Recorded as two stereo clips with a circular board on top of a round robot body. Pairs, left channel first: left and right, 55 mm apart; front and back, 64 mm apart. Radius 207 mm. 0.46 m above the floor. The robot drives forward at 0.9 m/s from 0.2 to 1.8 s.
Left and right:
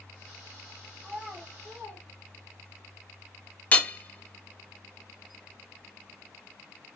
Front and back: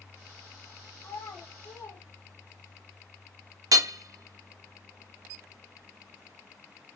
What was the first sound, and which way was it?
A child speaking, 20° right.